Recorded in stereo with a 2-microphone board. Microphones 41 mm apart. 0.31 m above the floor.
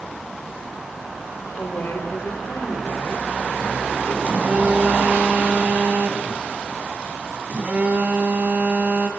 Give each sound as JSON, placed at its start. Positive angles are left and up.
{"t": 1.6, "sound": "a woman speaking", "side_deg": 65, "distance_m": 7.0}
{"t": 4.2, "sound": "a phone buzzing", "side_deg": -40, "distance_m": 2.0}